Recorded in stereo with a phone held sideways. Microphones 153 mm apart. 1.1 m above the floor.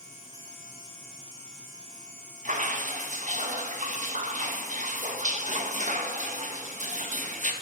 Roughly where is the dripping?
Right.